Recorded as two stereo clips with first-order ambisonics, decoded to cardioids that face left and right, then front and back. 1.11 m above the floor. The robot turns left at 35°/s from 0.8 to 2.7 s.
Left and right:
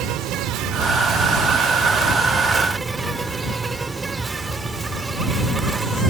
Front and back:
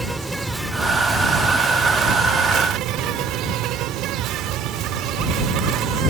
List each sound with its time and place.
0.0 s an insect: 95° right; by 6.1 s 160° right